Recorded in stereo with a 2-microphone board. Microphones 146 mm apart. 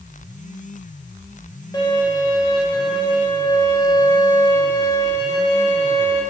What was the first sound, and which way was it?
A violin, 25° left (ahead or behind).